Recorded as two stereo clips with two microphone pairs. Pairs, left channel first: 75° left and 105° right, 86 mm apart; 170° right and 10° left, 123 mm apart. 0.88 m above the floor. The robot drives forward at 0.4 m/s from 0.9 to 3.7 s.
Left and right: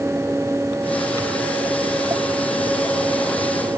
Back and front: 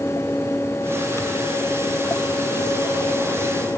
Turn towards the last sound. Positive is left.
No sound to turn to.